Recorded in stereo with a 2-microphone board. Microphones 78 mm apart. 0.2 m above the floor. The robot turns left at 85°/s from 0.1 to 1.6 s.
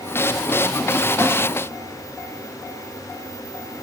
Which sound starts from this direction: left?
A splash, at 1.2 s.